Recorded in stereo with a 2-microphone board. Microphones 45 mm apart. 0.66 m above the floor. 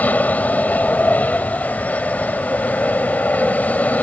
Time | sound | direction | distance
0.0 | an aircraft | 35° left (ahead or behind) | ?